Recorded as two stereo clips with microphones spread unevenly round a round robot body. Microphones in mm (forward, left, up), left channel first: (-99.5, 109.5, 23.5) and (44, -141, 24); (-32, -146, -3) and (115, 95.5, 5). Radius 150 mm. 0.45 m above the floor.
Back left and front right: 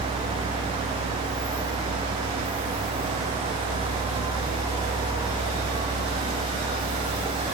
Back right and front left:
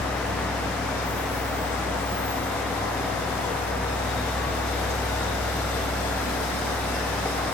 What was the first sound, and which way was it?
Only background noise.